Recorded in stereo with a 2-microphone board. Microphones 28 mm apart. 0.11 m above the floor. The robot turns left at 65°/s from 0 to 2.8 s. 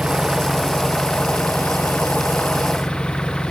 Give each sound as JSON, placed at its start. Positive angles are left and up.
{"t": 0.0, "sound": "an engine running", "azimuth_deg": -140}